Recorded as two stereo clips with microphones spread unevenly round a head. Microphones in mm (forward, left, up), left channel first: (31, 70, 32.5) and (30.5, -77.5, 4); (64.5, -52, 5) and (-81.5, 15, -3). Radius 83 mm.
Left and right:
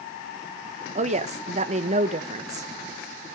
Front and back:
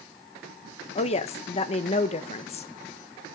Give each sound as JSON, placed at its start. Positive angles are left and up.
{"t": 0.9, "sound": "a woman speaking", "azimuth_deg": -75, "distance_m": 1.2}